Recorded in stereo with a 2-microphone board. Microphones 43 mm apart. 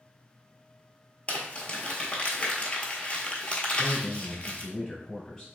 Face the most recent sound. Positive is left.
turn(degrees=20)  # may be behind; listen again after turning